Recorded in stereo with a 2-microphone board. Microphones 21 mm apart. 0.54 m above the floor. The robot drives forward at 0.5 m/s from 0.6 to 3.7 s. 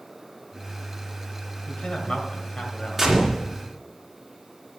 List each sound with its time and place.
1.7 s a man speaking: 55° left (ahead or behind), 2 m; by 3.1 s 45° left (ahead or behind), 2.5 m
3.0 s a gunshot: 10° right (ahead or behind), 2.5 m